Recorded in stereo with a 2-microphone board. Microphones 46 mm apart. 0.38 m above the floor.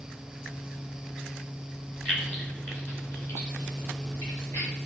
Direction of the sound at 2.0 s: 25° left (ahead or behind).